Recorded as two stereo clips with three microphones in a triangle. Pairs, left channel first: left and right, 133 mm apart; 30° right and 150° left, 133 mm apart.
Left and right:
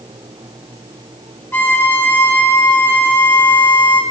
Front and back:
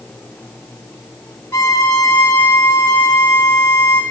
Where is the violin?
30° left, 1.7 m.